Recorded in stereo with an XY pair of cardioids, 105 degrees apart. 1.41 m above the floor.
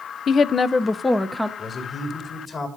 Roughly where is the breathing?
No breathing in this recording.